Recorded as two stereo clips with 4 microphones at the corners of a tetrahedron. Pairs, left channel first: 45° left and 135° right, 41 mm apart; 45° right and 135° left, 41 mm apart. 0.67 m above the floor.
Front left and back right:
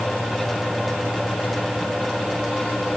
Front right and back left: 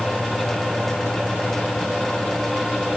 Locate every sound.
Only background noise.